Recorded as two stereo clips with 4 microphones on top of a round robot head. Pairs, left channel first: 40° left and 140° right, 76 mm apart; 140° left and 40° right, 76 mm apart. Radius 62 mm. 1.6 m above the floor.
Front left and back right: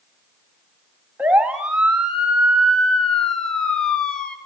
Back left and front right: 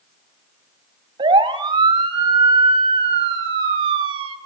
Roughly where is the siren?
Ahead right.